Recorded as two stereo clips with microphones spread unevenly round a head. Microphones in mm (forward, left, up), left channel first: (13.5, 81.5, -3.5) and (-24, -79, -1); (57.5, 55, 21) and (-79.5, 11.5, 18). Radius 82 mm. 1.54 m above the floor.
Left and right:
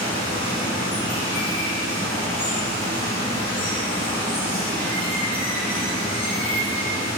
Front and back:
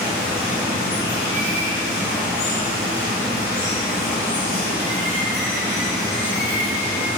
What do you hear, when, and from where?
0.0 s running water: 15° left, 0.9 m